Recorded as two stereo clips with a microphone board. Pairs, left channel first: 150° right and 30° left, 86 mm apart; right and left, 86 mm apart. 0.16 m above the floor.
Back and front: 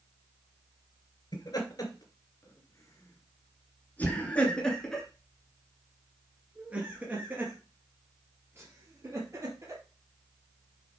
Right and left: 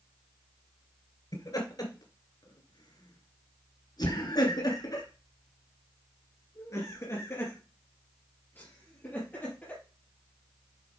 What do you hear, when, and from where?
1.3 s laughter: 125° right, 3 m; by 9.8 s 20° right, 4 m